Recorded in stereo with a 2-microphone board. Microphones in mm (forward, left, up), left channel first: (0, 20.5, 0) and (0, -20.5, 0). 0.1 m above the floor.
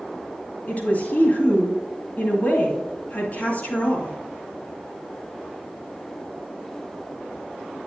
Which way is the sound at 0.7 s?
45° left (ahead or behind).